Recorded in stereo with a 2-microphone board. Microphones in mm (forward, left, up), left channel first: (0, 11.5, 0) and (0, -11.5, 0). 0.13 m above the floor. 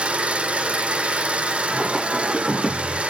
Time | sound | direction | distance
0.0 | an engine running | 70° right (ahead or behind) | 4 m
1.7 | singing | 15° right (ahead or behind) | 6 m